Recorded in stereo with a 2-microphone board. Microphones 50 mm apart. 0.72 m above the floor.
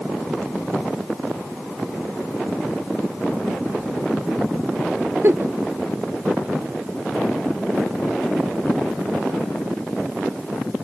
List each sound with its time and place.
5.2 s a giggle: 50° right (ahead or behind), 0.6 m